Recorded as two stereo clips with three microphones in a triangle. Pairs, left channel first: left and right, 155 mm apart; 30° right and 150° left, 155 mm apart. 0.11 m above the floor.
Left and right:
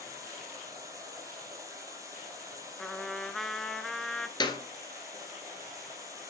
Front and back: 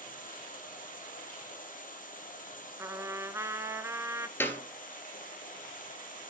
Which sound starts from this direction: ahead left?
A clap, at 4.4 s.